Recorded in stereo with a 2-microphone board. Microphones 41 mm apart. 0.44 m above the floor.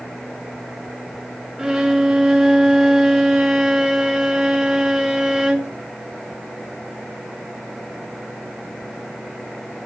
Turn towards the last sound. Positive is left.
turn(degrees=-15)  # may be behind; listen again after turning